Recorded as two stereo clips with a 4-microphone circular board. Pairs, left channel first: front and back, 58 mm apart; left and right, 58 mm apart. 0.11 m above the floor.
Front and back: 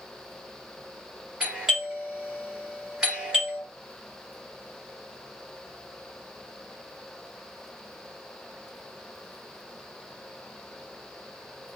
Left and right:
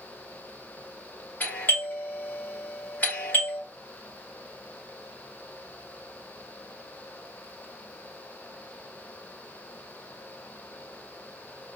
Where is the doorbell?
110° left, 2 m.